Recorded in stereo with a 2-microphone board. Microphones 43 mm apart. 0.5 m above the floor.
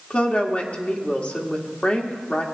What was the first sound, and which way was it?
A woman speaking, 30° left (ahead or behind).